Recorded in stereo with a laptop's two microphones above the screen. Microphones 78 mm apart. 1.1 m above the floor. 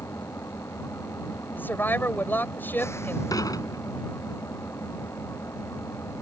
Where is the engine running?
35° left (ahead or behind).